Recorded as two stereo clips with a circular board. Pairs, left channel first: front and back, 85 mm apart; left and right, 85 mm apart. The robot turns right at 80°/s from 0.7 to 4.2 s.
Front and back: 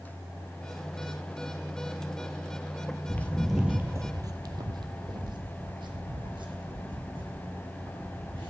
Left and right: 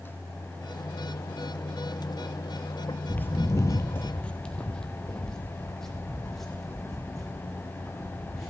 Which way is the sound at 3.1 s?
35° left.